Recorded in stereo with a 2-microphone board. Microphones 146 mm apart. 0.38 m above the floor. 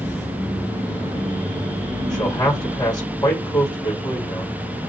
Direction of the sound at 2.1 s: 30° left (ahead or behind).